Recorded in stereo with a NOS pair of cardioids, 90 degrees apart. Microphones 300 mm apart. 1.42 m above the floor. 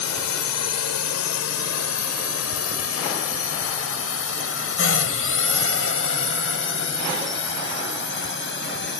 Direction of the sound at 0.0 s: 65° left.